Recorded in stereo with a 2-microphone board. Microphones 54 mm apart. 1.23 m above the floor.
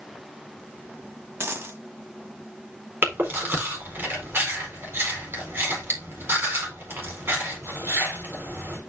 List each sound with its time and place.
1.4 s a dropped coin: 45° right (ahead or behind), 1.4 m
3.0 s chewing: 45° right (ahead or behind), 4 m